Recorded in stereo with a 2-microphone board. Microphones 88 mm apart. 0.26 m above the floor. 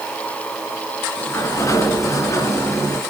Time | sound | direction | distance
1.2 | a sliding door | 35° left (ahead or behind) | 2.5 m